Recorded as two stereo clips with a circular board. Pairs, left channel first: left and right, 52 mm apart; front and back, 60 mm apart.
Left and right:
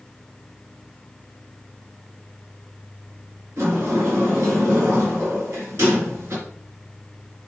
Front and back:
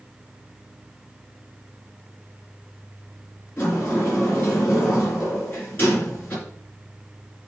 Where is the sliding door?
55° right, 3.5 m.